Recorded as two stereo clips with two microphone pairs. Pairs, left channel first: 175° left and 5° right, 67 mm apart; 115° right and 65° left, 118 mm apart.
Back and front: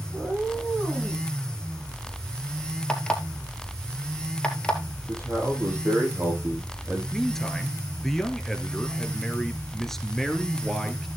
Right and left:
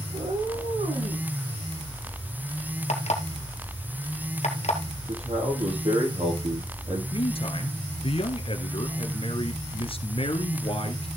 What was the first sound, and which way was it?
A cat meowing, 90° left.